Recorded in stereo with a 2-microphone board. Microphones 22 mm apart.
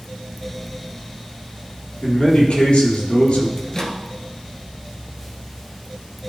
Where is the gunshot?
No gunshot in this recording.